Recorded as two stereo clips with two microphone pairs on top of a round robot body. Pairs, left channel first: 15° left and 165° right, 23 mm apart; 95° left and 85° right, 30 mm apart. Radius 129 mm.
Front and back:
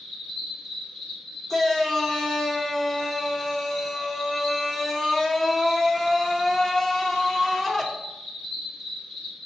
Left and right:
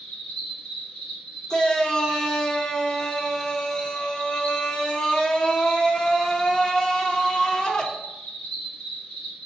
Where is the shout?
50° left, 1.0 m.